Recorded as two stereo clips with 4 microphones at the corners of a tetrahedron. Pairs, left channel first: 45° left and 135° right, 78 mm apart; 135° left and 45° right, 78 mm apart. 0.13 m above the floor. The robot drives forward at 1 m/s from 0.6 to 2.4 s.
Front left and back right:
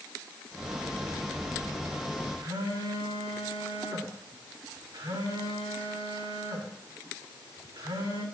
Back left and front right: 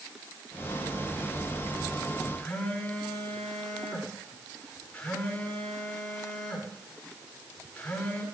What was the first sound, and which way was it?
A phone buzzing, 155° right.